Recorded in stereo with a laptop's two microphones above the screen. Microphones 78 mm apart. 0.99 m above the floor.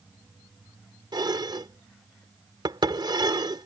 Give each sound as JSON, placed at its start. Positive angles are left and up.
{"t": 1.1, "sound": "dishes clattering", "side_deg": -70}